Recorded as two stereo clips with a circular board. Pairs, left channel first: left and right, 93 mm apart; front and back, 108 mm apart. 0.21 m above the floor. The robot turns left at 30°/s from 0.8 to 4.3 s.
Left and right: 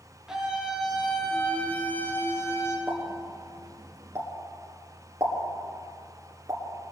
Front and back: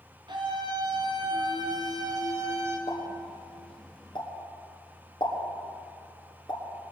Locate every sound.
0.3 s a scream: 170° right, 2.5 m; by 2.8 s 130° left, 2.5 m
2.9 s a pop: 5° left, 2 m; by 6.6 s 35° right, 2 m